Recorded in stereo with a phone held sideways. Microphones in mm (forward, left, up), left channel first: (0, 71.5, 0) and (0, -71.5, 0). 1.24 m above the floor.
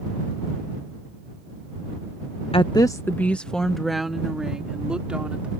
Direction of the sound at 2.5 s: 45° left (ahead or behind).